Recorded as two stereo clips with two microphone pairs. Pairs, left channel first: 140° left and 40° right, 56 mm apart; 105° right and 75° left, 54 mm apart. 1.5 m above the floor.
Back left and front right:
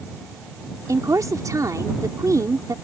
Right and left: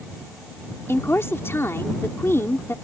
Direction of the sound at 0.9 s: 60° right.